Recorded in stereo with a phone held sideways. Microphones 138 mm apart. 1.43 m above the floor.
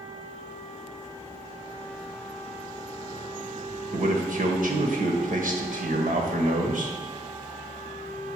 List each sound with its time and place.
3.9 s a man speaking: 75° right (ahead or behind), 1.4 m